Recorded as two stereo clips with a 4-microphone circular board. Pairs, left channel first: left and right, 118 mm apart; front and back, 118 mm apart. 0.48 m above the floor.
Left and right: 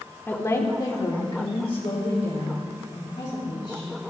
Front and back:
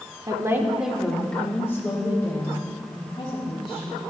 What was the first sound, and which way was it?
A woman speaking, 155° left.